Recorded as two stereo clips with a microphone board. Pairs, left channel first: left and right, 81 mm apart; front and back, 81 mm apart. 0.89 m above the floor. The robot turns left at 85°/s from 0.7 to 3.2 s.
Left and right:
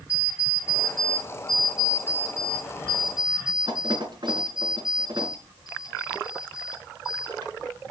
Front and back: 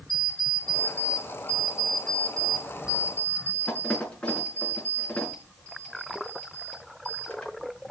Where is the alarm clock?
135° left, 4.5 m; by 7.5 s 75° right, 4.5 m.